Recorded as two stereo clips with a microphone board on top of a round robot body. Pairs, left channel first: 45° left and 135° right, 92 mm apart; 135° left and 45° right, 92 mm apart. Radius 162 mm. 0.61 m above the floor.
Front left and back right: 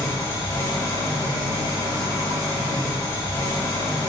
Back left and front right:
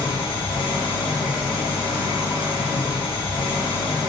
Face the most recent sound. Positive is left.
turn(degrees=105)